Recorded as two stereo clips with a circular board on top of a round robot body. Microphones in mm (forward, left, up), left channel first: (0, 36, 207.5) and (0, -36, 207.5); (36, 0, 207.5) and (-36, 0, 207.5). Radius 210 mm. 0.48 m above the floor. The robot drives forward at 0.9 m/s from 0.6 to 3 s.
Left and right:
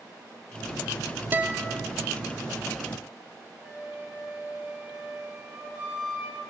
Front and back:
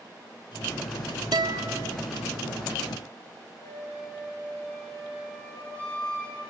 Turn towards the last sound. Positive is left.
turn(degrees=-15)